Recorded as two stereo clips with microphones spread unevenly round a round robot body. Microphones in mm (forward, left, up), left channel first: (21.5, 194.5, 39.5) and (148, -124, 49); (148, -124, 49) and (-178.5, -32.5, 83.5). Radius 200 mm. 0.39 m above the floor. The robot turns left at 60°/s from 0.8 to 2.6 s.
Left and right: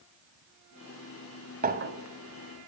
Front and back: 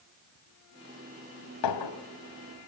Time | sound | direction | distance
1.6 | a clink | straight ahead | 2.0 m